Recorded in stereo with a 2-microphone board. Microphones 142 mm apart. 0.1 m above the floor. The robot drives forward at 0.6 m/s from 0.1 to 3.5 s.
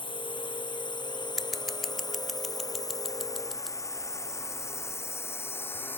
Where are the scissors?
Centre (ahead or behind).